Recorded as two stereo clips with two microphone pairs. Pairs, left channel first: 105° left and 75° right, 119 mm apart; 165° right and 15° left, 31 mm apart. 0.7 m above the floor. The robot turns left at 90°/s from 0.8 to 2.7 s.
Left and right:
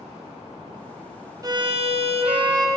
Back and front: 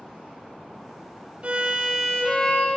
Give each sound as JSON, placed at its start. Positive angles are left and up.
{"t": 1.4, "sound": "a violin", "azimuth_deg": -20, "distance_m": 0.7}